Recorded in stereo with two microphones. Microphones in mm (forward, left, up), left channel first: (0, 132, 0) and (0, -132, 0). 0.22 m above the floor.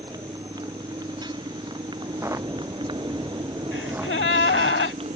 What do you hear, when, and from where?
0.0 s a motorcycle: 15° right (ahead or behind); by 5.2 s 20° right (ahead or behind)
2.0 s footsteps: 10° right (ahead or behind); by 4.7 s 5° right (ahead or behind)
3.7 s a gasp: 45° left (ahead or behind)